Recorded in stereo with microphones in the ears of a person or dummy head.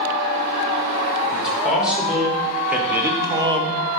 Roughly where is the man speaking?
Centre.